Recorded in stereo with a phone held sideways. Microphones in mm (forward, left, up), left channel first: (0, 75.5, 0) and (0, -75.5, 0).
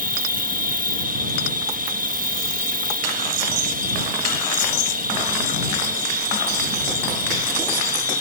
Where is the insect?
65° right (ahead or behind).